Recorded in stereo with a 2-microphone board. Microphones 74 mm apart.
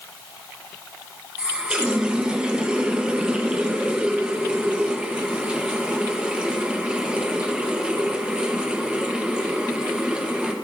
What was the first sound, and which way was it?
A running tap, 15° right (ahead or behind).